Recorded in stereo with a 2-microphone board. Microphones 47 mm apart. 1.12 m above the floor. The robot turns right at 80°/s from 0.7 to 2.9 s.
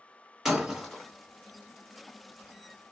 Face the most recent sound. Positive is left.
turn(degrees=170)